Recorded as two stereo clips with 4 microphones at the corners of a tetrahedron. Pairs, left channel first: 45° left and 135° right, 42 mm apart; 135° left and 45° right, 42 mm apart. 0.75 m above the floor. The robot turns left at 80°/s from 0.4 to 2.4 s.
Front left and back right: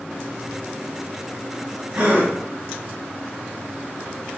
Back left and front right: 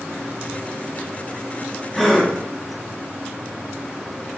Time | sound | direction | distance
1.9 | a gasp | 135° right | 1.4 m